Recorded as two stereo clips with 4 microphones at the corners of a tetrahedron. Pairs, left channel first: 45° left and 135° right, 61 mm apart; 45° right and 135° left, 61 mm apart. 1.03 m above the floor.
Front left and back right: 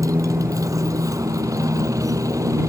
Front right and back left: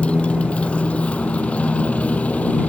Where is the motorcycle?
115° right; by 2.7 s 110° right.